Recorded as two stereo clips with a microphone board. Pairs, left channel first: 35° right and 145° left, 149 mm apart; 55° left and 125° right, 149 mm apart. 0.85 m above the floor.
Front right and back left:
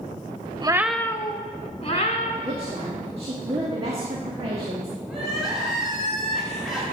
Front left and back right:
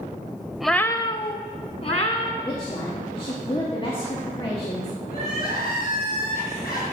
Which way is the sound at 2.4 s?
105° left.